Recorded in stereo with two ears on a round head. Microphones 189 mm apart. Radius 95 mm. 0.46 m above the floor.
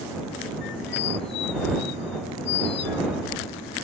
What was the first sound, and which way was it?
A squeak, 60° left (ahead or behind).